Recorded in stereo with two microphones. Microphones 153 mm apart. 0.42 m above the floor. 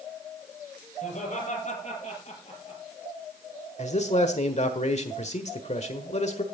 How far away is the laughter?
About 8 m.